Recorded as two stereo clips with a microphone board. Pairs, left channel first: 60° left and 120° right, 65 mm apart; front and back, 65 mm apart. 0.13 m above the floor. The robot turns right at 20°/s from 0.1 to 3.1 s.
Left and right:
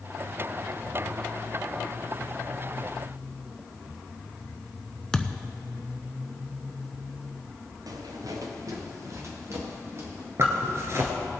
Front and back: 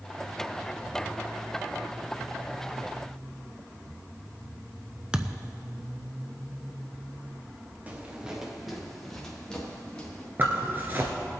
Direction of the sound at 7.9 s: 115° right.